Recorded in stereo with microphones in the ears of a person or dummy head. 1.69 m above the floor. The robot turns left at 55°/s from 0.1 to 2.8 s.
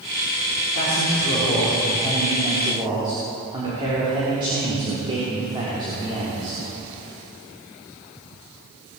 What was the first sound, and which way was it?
A man speaking, 85° left.